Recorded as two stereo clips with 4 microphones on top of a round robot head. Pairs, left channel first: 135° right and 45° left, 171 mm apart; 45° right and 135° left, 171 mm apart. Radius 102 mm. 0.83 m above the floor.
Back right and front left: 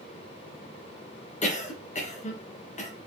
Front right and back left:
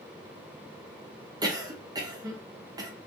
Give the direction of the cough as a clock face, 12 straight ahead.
5 o'clock.